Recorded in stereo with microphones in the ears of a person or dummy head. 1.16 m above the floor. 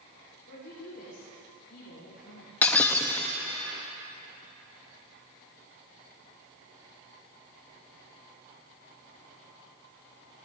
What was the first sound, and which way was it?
A woman speaking, 50° left (ahead or behind).